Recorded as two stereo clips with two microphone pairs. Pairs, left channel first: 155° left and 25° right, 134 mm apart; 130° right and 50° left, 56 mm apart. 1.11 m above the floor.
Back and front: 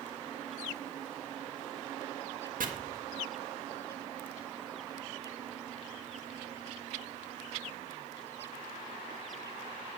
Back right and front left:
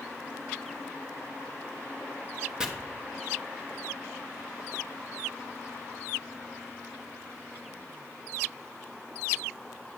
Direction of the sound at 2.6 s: 25° right.